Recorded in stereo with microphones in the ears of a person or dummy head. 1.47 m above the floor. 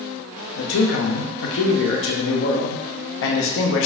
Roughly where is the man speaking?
Left.